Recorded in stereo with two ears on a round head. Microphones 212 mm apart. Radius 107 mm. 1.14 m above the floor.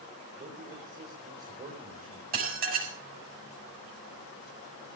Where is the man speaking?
35° right (ahead or behind), 4 m.